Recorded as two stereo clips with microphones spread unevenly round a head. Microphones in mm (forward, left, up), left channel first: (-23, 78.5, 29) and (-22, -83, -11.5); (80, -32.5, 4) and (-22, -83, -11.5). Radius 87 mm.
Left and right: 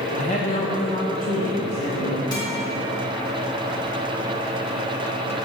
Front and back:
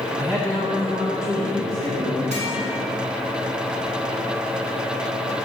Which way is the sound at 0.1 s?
135° left.